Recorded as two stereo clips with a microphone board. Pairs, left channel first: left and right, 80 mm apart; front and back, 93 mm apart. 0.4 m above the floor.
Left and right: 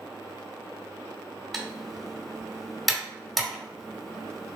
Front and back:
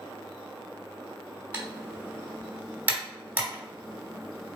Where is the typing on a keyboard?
175° left, 1.1 m.